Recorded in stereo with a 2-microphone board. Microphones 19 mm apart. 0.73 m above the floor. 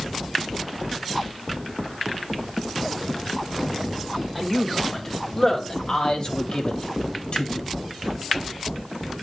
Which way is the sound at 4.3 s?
15° left (ahead or behind).